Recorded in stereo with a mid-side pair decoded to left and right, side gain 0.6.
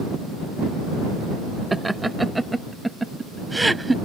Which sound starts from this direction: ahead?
Laughter, at 1.7 s.